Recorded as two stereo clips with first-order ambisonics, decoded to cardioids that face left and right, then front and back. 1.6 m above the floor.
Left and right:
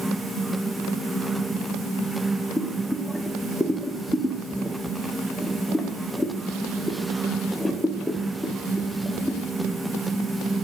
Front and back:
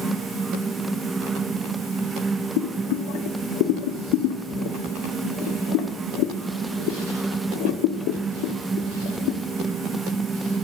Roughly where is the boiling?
Ahead.